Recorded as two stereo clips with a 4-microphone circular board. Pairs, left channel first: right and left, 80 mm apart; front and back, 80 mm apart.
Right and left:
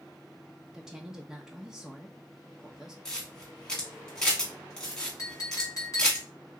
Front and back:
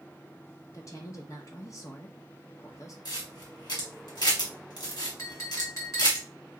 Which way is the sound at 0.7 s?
10° left.